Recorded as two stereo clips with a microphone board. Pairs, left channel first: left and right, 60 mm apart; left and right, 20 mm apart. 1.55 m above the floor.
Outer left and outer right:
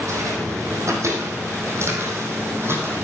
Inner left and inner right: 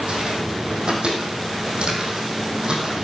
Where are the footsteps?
60° right (ahead or behind), 4.5 m; by 3.1 s 40° right (ahead or behind), 4.5 m.